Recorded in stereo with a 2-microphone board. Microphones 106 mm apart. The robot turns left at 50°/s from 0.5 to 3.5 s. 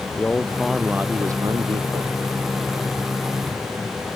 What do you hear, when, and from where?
0.2 s a man speaking: 10° left; by 2.1 s 70° right